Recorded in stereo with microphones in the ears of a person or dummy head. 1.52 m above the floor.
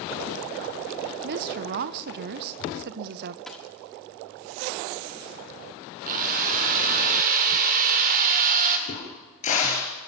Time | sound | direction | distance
1.2 | a woman speaking | 50° right (ahead or behind) | 0.7 m
3.5 | a dropped coin | centre (ahead or behind) | 1.4 m
6.0 | a drill | 40° right (ahead or behind) | 2 m
8.9 | a crack | 40° left (ahead or behind) | 4 m